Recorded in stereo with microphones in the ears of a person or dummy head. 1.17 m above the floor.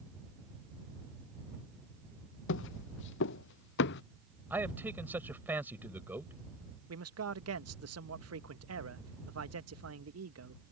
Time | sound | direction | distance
2.5 | footsteps | 85° left | ?
4.5 | a man speaking | 15° right (ahead or behind) | ?
6.9 | a man speaking | 80° right | ?